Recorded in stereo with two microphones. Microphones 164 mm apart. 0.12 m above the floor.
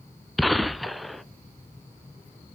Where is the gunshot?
Centre (ahead or behind), 0.6 m.